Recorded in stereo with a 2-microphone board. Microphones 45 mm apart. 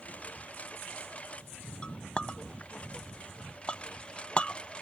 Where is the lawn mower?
30° left (ahead or behind); by 4.8 s 25° left (ahead or behind).